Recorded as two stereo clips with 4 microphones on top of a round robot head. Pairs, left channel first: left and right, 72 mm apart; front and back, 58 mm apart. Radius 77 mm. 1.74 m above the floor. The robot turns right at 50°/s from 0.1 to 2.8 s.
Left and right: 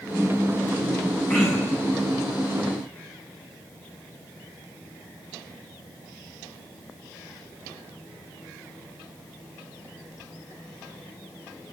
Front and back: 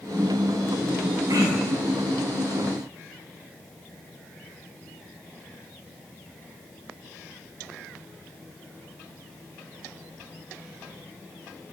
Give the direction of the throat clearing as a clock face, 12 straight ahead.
7 o'clock.